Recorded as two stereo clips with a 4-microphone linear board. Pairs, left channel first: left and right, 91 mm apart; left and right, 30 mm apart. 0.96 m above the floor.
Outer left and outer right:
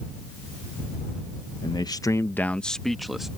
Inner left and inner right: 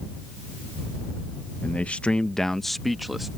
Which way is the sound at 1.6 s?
50° left (ahead or behind).